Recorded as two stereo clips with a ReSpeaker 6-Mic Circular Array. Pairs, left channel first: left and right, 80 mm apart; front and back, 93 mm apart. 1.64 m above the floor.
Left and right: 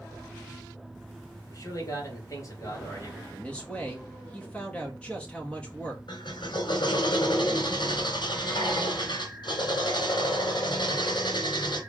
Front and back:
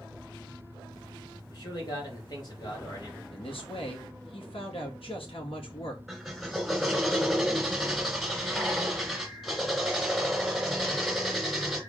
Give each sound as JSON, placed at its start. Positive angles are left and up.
{"t": 1.5, "sound": "a man speaking", "azimuth_deg": 40, "distance_m": 3.0}
{"t": 3.3, "sound": "a man speaking", "azimuth_deg": 15, "distance_m": 2.5}
{"t": 6.1, "sound": "a drill", "azimuth_deg": 90, "distance_m": 3.0}